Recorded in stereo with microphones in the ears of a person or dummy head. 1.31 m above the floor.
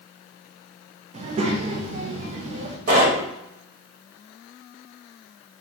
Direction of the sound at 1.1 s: 40° right (ahead or behind).